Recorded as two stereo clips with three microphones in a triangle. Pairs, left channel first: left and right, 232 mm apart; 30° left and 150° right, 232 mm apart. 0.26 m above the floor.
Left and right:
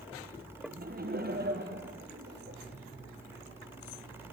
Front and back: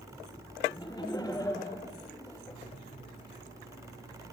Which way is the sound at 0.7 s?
45° right.